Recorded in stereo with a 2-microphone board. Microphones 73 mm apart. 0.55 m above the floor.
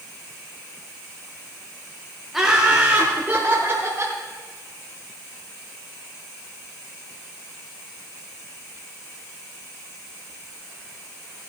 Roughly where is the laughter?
Centre.